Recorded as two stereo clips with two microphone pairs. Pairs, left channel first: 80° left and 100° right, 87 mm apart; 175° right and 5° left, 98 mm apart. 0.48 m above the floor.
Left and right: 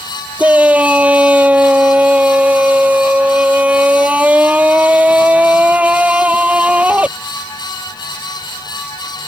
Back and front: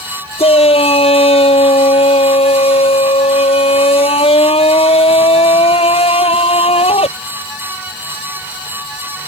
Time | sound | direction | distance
0.4 | a shout | 175° right | ?